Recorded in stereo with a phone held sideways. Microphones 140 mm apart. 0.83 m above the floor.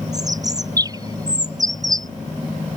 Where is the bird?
25° right (ahead or behind).